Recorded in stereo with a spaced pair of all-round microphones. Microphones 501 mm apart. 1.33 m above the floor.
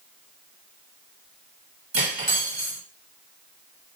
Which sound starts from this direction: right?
Cutlery clinking, at 1.9 s.